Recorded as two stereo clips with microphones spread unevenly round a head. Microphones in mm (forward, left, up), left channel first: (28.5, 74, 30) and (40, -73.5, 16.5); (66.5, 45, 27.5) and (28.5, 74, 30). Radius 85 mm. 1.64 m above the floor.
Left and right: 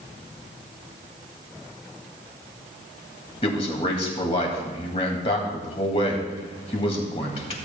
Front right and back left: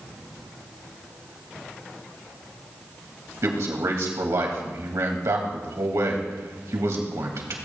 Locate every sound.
3.4 s a man speaking: 150° left, 2.0 m